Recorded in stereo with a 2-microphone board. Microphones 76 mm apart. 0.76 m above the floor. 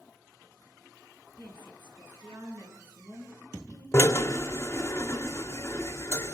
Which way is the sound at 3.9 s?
40° left (ahead or behind).